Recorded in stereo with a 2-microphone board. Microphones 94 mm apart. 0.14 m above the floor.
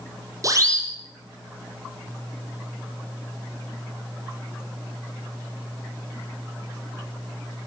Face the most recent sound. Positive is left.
turn(degrees=-40)  # may be behind; listen again after turning